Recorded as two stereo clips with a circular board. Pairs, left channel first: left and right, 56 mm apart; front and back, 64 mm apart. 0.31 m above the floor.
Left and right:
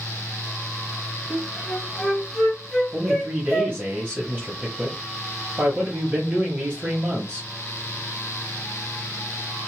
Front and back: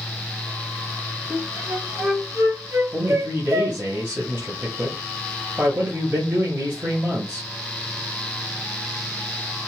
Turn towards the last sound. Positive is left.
turn(degrees=-145)